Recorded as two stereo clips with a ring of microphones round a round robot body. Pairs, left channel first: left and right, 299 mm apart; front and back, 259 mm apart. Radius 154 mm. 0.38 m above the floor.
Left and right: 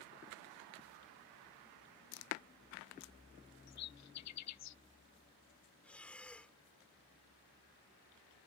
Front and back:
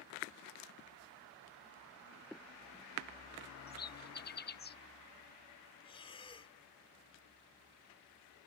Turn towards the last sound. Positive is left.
turn(degrees=10)